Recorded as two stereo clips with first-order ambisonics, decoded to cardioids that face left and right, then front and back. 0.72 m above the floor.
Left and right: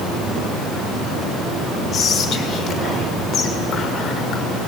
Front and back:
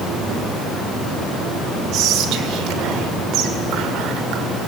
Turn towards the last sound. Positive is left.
turn(degrees=145)